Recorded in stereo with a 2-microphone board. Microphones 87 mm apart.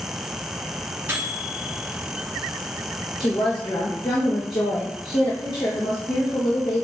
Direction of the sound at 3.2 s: 60° left (ahead or behind).